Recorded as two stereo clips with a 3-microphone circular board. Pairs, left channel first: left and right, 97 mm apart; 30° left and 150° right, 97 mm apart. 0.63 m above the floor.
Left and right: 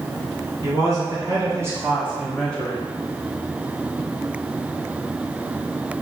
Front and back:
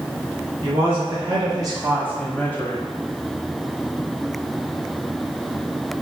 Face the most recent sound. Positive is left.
turn(degrees=40)